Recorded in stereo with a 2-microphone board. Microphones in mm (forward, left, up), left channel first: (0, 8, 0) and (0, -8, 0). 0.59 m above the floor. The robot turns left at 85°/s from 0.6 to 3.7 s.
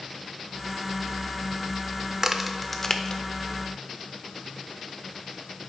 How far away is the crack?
About 0.6 m.